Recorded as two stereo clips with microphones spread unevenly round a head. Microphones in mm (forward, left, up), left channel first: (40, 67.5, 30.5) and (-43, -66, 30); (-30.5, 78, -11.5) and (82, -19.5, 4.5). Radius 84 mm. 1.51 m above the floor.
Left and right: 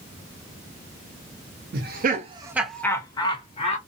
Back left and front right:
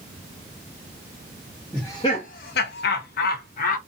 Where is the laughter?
140° right, 0.7 m; by 3.8 s 110° left, 1.2 m.